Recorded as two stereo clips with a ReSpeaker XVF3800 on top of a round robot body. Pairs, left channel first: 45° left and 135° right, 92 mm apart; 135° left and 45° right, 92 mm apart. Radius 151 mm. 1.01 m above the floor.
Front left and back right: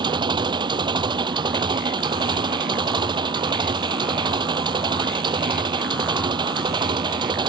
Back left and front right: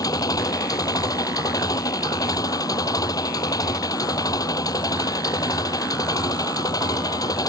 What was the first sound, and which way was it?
An engine running, 175° right.